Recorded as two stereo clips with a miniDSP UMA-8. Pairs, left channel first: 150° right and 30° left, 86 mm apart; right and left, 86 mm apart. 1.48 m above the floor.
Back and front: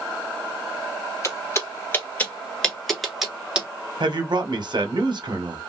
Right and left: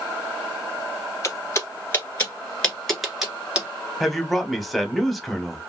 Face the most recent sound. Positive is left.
turn(degrees=0)